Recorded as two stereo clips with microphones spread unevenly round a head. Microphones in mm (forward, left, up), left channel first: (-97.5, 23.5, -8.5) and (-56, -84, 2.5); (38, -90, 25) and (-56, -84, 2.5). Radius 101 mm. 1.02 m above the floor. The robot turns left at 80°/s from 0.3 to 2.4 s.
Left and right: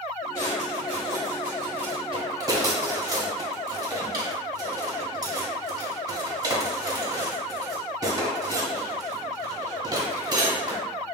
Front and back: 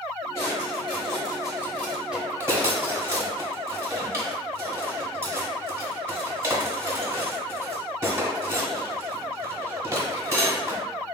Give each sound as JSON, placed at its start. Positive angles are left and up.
{"t": 0.3, "sound": "a drawer", "azimuth_deg": 50, "distance_m": 0.9}